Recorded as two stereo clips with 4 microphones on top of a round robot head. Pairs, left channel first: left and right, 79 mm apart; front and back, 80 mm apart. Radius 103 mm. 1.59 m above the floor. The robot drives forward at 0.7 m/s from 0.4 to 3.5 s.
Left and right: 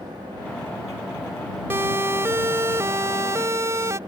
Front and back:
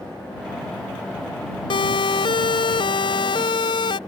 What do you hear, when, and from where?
1.7 s a siren: 25° right; by 4.0 s 30° right